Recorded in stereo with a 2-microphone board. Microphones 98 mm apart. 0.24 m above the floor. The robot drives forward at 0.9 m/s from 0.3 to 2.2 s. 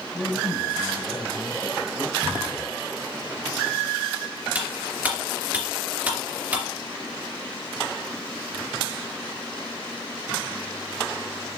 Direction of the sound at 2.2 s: 45° right (ahead or behind).